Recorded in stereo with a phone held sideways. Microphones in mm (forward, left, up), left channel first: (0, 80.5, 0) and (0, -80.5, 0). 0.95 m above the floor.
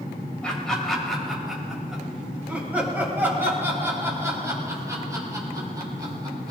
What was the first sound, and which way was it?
Laughter, 5° left (ahead or behind).